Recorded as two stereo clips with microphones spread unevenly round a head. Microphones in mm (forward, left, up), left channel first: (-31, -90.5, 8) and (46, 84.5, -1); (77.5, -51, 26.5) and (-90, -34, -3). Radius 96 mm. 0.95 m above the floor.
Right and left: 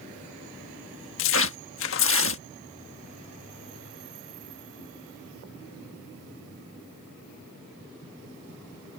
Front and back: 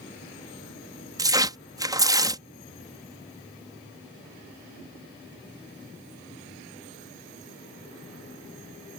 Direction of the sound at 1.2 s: 120° right.